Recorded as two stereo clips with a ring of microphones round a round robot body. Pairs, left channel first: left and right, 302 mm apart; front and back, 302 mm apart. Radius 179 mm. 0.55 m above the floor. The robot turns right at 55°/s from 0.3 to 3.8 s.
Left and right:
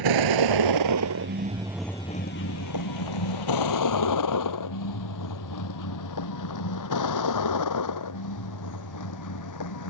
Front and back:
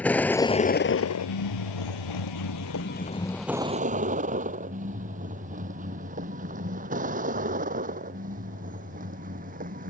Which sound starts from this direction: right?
A vehicle, at 0.0 s.